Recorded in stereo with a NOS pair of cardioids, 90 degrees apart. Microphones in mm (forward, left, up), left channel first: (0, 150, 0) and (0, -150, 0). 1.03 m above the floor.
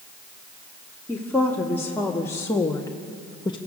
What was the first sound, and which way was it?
A woman speaking, 5° left.